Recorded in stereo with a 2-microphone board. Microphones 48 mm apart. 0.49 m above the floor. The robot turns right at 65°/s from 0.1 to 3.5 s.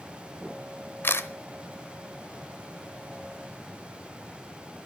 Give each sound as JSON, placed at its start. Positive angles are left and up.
{"t": 1.0, "sound": "a camera shutter", "side_deg": 50, "distance_m": 0.9}